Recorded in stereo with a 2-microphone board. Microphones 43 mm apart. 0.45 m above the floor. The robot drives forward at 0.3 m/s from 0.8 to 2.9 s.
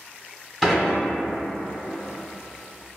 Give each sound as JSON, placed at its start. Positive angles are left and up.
{"t": 0.6, "sound": "dishes clattering", "side_deg": 0, "distance_m": 1.3}